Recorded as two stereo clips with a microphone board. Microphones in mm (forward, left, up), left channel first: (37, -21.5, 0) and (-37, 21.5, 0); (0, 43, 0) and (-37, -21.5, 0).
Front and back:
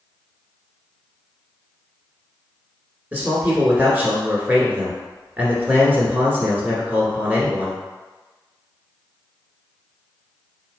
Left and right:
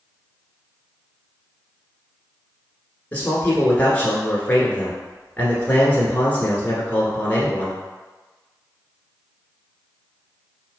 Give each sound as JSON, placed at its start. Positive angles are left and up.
{"t": 3.1, "sound": "a man speaking", "azimuth_deg": 105, "distance_m": 1.2}